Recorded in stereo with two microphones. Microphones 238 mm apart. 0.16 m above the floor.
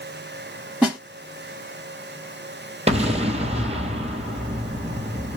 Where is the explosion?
25° right (ahead or behind), 1.0 m.